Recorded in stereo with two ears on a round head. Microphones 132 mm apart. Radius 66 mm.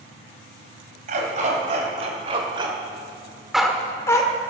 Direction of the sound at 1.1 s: 55° right (ahead or behind).